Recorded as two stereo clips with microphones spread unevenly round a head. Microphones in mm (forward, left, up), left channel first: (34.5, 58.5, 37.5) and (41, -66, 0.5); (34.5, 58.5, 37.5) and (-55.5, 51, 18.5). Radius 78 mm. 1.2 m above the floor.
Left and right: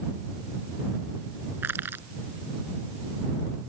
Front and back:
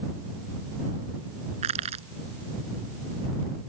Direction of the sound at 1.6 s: 165° right.